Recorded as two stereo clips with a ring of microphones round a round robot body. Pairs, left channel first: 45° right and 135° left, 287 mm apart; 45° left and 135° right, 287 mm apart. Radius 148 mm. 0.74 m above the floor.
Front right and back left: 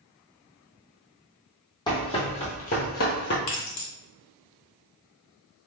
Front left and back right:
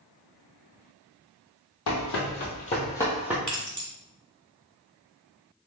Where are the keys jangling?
40° right, 1.6 m.